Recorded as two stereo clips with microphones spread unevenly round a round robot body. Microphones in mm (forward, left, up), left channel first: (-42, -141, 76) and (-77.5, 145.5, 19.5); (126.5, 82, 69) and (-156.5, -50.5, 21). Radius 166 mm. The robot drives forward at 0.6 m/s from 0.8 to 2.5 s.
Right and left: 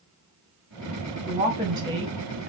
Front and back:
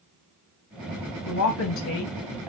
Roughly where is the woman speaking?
Ahead left.